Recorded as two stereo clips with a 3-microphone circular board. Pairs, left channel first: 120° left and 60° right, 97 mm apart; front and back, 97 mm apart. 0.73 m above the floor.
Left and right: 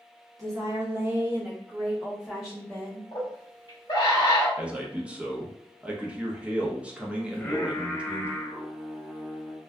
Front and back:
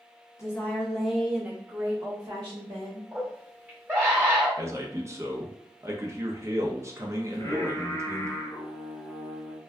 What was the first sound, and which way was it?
A woman speaking, 40° right.